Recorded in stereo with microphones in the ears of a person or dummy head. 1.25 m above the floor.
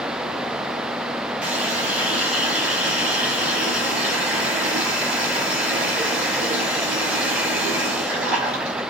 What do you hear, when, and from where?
1.4 s a running tap: 10° right (ahead or behind), 5.5 m